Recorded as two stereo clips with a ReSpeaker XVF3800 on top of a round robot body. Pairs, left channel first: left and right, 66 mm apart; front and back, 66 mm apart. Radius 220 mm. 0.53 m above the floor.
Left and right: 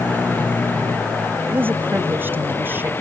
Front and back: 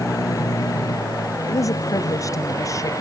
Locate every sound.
0.0 s a vehicle: 30° left; by 3.0 s 35° left
1.5 s a woman speaking: 30° right